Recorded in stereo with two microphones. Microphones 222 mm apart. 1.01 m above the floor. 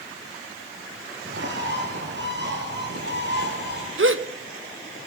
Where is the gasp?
65° right (ahead or behind), 1.0 m.